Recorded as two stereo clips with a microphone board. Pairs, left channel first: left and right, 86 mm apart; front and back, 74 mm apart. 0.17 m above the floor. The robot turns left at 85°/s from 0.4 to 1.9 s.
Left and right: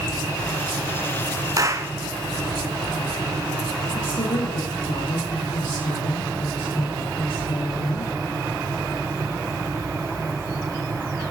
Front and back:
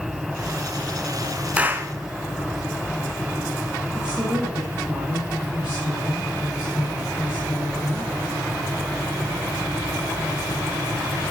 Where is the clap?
110° right, 1.5 m; by 1.9 s 140° right, 1.5 m.